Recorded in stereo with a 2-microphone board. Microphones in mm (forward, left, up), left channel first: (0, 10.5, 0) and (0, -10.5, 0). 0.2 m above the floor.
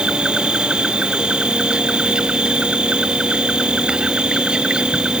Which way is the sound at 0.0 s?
60° right (ahead or behind).